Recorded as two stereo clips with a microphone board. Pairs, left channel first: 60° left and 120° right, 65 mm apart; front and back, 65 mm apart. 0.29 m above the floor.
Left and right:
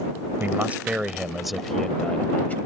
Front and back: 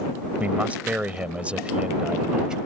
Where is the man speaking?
135° right; by 2.6 s 110° left.